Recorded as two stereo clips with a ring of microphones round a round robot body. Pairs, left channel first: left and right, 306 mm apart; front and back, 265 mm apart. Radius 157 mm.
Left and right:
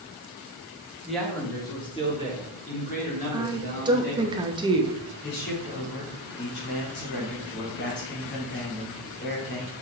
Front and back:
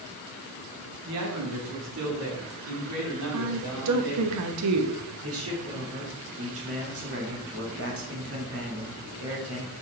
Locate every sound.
1.1 s a man speaking: straight behind, 1.4 m; by 4.3 s 150° left, 4 m
3.3 s a woman speaking: 165° right, 0.9 m
5.2 s a man speaking: 145° left, 2.5 m